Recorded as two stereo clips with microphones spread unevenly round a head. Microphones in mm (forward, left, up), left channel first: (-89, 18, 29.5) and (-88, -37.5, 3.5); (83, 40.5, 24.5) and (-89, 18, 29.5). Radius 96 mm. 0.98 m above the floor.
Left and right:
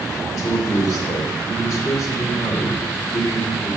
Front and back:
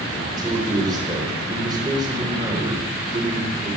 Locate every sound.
0.4 s a man speaking: 120° left, 3.5 m